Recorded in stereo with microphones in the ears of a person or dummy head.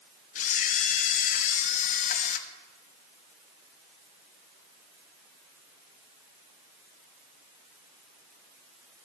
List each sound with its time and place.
0.3 s a camera shutter: 30° left (ahead or behind), 0.5 m